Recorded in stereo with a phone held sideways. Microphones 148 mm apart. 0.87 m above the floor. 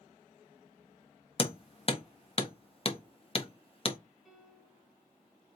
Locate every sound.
1.4 s hammering: 40° left (ahead or behind), 0.5 m
4.2 s a piano: centre (ahead or behind), 1.7 m